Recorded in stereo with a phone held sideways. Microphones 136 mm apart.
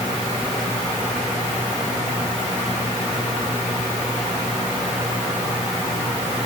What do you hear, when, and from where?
Only background noise.